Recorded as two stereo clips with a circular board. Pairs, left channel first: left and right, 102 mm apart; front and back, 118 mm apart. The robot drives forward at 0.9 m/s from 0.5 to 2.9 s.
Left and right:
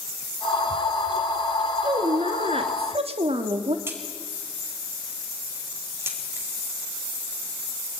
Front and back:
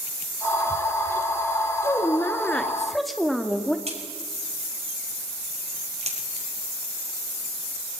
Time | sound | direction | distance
1.8 | a woman speaking | 65° right | 2.5 m
3.9 | a crack | 155° right | 5 m